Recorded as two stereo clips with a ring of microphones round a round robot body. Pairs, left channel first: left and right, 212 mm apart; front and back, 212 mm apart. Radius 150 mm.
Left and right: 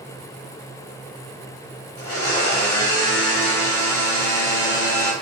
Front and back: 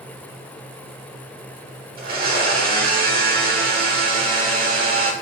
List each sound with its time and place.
2.0 s a blender: 130° left, 1.0 m